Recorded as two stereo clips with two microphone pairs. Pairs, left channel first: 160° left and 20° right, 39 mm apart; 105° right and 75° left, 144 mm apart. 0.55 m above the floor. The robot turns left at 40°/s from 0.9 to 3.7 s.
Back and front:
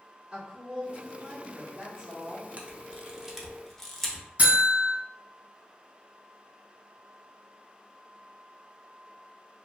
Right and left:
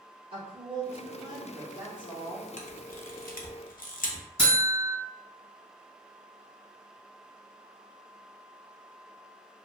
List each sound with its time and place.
0.3 s a woman speaking: 40° left, 1.0 m; by 2.5 s 25° right, 1.0 m
2.6 s a camera shutter: 75° right, 0.5 m; by 4.2 s 120° right, 0.5 m
4.4 s a buzzer: 65° right, 1.7 m